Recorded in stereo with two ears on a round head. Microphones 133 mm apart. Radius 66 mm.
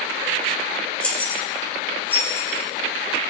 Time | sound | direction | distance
1.0 | keys jangling | 10° left (ahead or behind) | 3 m